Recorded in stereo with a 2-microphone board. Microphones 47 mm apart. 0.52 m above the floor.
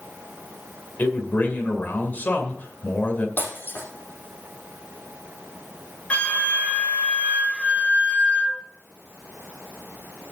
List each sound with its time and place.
1.0 s a man speaking: 45° left (ahead or behind), 2 m
3.4 s breaking glass: 45° left (ahead or behind), 5.5 m
6.1 s a flute: 30° left (ahead or behind), 1.7 m